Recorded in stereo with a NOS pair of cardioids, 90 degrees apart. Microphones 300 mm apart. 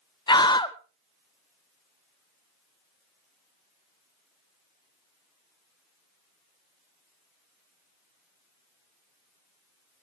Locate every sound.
0.3 s a scream: 15° left, 1.1 m